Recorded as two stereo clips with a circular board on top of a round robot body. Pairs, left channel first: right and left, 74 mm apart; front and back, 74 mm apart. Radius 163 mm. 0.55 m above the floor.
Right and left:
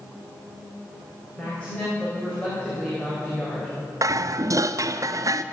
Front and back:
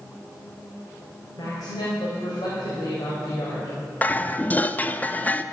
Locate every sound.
1.4 s a woman speaking: 15° right, 4 m
4.0 s dishes clattering: 65° left, 0.8 m